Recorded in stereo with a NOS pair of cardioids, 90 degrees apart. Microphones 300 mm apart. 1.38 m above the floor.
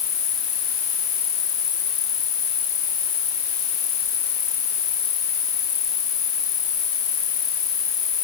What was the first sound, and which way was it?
An insect, 55° left.